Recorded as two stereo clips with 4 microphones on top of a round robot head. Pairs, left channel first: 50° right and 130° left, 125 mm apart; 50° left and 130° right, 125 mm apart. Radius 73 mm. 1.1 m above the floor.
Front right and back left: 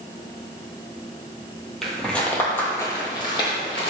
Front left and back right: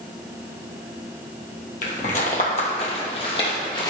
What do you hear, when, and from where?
1.8 s footsteps: 35° left, 1.9 m; by 3.9 s 5° right, 2.5 m